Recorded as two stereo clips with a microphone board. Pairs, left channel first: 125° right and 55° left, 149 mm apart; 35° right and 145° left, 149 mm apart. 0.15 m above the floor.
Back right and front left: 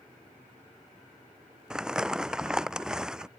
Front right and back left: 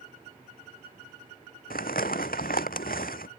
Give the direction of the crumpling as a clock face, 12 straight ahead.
1 o'clock.